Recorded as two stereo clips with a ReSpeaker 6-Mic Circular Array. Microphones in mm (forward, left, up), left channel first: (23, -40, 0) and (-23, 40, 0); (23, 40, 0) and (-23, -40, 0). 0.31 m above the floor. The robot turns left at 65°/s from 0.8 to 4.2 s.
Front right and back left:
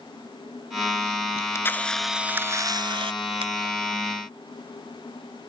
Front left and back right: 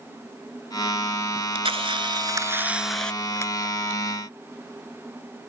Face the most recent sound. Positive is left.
turn(degrees=70)